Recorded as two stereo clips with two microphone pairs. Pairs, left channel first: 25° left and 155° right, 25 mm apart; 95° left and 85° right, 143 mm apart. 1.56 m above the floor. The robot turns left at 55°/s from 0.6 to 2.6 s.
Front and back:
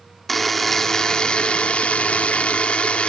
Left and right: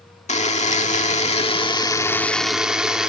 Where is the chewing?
I don't hear chewing.